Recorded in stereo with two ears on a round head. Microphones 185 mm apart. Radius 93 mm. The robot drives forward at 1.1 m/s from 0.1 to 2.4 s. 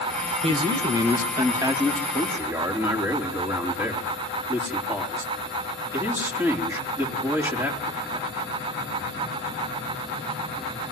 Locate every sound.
0.4 s a man speaking: 25° right (ahead or behind), 1.6 m; by 8.3 s 10° right (ahead or behind), 3.5 m